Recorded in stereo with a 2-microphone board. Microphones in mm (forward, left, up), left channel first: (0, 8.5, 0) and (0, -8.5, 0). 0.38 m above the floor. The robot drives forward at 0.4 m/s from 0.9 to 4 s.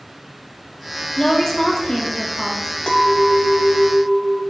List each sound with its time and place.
1.2 s a woman speaking: 30° left (ahead or behind), 0.9 m; by 2.7 s 25° left (ahead or behind), 1.1 m
2.9 s a clink: 50° left (ahead or behind), 1.1 m; by 4.4 s 55° left (ahead or behind), 1.0 m